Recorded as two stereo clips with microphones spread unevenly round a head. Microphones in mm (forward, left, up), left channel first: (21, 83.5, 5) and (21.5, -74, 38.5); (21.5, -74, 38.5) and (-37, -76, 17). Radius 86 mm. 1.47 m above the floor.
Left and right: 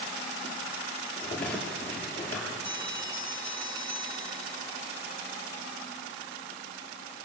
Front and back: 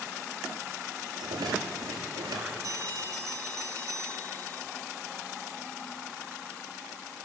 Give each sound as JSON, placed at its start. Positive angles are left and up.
{"t": 1.2, "sound": "a rattle", "azimuth_deg": 175, "distance_m": 6.5}
{"t": 2.6, "sound": "a bell", "azimuth_deg": -150, "distance_m": 4.5}